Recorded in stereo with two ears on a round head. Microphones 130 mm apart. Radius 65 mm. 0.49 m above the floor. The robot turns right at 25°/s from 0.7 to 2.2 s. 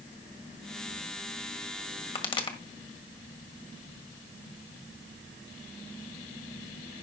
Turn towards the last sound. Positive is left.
turn(degrees=35)  # may be behind; listen again after turning